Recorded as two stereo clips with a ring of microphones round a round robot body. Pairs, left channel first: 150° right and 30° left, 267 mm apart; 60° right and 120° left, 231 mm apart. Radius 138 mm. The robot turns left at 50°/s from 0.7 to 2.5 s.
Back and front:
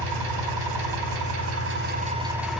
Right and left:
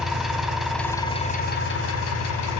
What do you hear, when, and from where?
0.0 s an engine running: 30° left, 3 m; by 2.6 s 60° right, 3 m